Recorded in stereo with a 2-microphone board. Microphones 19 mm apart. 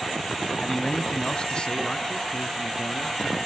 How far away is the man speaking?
About 1.0 m.